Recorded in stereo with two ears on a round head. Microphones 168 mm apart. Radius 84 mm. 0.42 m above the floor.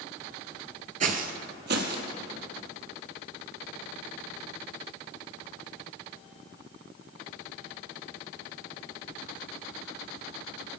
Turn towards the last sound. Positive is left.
turn(degrees=-60)  # may be behind; listen again after turning